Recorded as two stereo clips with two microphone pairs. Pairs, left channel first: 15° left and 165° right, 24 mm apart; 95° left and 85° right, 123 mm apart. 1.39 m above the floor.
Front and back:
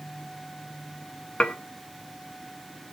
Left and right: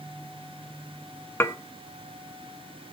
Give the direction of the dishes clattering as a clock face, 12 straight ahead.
11 o'clock.